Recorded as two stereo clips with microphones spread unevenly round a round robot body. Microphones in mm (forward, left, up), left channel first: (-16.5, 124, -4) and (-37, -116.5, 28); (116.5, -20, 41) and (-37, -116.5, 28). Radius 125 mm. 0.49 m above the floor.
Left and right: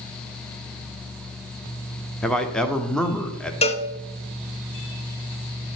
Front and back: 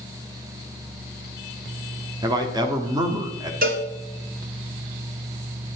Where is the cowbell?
155° left, 0.8 m.